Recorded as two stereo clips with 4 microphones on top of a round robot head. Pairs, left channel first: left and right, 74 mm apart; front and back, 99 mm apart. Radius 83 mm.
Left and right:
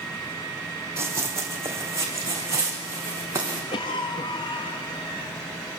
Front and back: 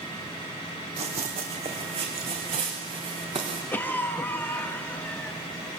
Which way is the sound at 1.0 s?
145° right.